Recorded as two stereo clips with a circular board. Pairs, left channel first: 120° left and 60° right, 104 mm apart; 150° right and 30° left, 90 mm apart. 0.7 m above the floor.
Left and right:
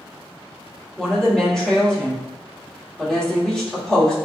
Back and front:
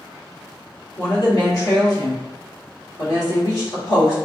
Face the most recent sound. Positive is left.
turn(degrees=-160)